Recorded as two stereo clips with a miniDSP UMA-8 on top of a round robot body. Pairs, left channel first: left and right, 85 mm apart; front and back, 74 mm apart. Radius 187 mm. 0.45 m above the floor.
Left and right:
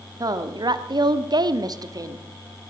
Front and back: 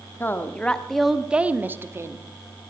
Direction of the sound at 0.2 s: 55° right.